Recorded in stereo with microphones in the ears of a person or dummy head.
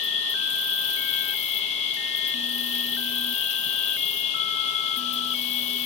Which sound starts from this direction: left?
An insect, at 0.0 s.